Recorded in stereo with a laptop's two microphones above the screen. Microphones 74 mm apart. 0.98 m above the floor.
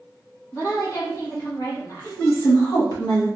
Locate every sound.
0.5 s a woman speaking: 45° left (ahead or behind), 1.6 m
2.0 s a woman speaking: 50° left (ahead or behind), 1.3 m